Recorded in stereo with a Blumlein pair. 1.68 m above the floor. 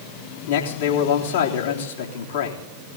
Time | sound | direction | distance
0.5 | a man speaking | 60° left | 3.5 m